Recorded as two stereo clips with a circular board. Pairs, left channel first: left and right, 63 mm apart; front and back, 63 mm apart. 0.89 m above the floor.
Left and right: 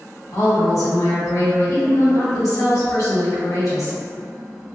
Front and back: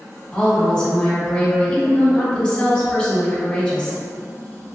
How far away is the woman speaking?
About 1.3 m.